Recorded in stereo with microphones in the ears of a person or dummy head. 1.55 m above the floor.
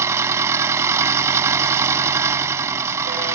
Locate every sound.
0.0 s an engine running: 15° right (ahead or behind)